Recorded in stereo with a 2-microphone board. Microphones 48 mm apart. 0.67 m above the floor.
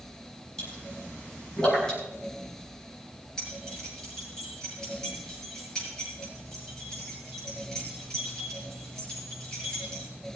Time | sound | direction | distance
0.6 | a pop | 15° left (ahead or behind) | 6.5 m
3.4 | keys jangling | 15° left (ahead or behind) | 8 m